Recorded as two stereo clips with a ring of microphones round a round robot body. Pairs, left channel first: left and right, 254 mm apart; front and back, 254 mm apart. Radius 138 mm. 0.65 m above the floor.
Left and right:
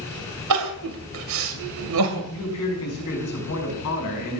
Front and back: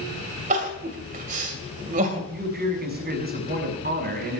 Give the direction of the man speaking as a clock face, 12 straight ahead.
8 o'clock.